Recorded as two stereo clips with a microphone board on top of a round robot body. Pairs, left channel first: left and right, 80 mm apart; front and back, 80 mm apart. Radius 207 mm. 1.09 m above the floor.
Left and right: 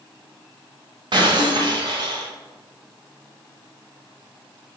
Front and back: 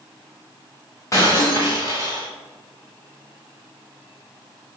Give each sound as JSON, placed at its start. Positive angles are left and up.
{"t": 1.1, "sound": "breaking glass", "azimuth_deg": -55, "distance_m": 1.4}